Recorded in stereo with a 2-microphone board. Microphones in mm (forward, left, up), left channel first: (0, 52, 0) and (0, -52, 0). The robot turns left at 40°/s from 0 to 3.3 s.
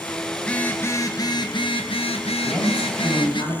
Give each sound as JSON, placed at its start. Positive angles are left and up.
{"t": 0.4, "sound": "a phone buzzing", "azimuth_deg": 170, "distance_m": 1.1}
{"t": 2.4, "sound": "a man speaking", "azimuth_deg": 180, "distance_m": 5.5}